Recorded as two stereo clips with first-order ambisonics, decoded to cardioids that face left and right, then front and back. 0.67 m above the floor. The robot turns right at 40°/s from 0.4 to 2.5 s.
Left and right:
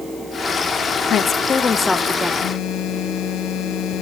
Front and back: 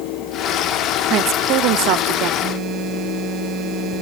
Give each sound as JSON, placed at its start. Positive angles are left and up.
{"t": 1.1, "sound": "a woman speaking", "azimuth_deg": 140, "distance_m": 0.9}
{"t": 2.4, "sound": "a phone buzzing", "azimuth_deg": 130, "distance_m": 1.5}